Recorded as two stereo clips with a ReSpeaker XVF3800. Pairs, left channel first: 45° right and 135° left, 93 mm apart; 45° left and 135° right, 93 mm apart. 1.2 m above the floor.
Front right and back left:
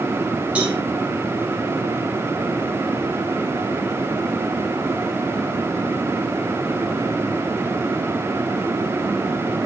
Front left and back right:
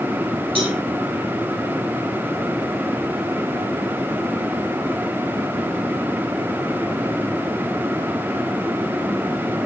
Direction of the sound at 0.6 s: 145° right.